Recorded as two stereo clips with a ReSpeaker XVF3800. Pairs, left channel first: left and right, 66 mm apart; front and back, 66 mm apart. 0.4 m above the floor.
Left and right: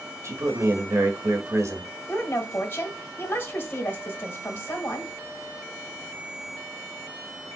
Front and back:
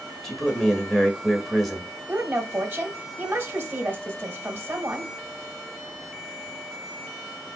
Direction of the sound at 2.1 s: 135° left.